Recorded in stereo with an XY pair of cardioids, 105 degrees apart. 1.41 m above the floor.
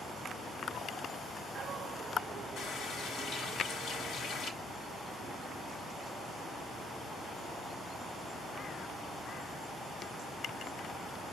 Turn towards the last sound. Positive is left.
turn(degrees=65)